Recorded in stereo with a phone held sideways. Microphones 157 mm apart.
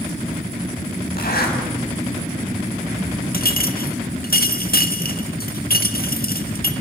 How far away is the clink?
About 1.5 m.